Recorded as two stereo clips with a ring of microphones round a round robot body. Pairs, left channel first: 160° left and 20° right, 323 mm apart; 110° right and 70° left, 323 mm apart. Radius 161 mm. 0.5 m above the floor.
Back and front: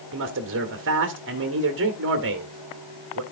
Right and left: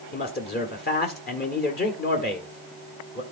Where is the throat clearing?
No throat clearing in this recording.